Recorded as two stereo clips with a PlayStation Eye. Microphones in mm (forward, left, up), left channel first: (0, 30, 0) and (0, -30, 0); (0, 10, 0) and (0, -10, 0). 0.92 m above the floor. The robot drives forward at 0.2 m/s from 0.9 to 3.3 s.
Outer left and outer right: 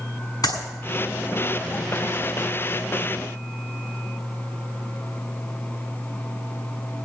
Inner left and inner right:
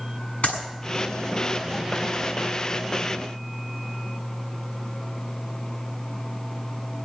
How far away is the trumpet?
I don't hear a trumpet.